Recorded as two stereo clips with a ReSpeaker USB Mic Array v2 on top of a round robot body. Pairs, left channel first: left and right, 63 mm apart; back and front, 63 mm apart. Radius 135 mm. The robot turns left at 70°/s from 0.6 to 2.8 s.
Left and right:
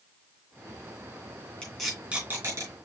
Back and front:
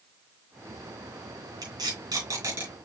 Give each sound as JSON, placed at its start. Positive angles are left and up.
{"t": 1.6, "sound": "tape being pulled", "azimuth_deg": 15, "distance_m": 3.5}